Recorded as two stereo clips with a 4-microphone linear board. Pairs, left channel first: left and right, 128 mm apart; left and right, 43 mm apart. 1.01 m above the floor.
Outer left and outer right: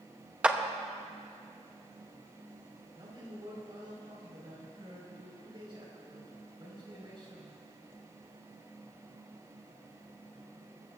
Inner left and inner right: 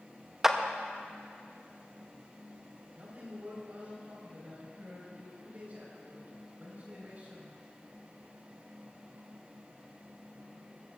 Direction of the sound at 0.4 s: 10° right (ahead or behind).